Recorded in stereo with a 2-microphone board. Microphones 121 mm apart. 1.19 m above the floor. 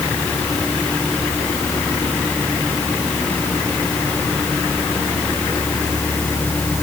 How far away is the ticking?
No ticking in this recording.